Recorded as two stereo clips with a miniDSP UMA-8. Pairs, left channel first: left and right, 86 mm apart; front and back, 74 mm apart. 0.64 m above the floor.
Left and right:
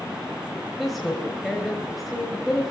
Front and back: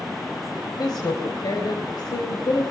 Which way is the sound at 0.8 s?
Straight ahead.